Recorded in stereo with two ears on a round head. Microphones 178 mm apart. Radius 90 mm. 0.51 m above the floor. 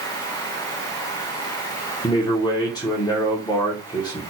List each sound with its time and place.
2.0 s a man speaking: 20° left (ahead or behind), 1.1 m